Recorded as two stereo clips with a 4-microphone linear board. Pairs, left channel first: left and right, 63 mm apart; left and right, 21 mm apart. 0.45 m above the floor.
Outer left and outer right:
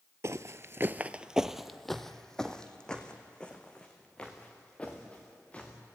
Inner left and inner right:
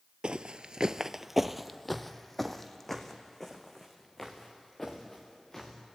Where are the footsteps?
50° right (ahead or behind), 0.6 m; by 5.7 s 20° left (ahead or behind), 4 m.